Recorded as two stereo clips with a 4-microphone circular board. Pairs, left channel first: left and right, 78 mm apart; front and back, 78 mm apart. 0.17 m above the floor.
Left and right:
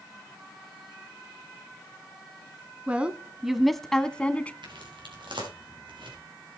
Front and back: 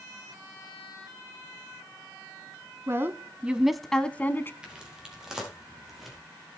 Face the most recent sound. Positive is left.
turn(degrees=-90)